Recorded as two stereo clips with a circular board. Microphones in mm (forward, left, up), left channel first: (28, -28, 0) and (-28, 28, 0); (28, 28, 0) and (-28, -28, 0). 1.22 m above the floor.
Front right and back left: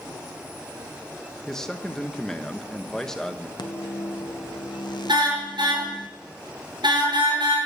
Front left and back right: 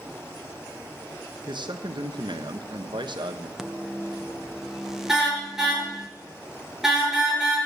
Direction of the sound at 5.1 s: 140° left.